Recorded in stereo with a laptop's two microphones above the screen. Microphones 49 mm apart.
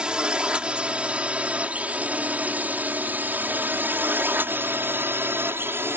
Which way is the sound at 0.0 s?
20° right (ahead or behind).